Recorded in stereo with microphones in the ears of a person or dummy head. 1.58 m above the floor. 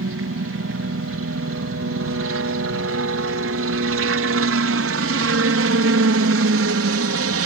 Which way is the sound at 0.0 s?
60° right (ahead or behind).